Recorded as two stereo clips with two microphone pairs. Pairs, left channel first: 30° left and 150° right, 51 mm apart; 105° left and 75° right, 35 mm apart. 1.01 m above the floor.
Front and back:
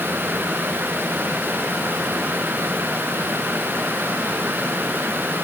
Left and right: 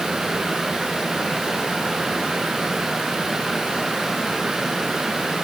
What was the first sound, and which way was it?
Only background noise.